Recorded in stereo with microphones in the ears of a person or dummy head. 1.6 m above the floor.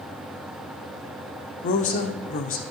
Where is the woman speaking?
40° left (ahead or behind), 0.6 m.